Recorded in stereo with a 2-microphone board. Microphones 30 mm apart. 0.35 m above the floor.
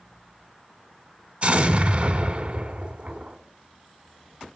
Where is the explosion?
50° right (ahead or behind), 1.0 m.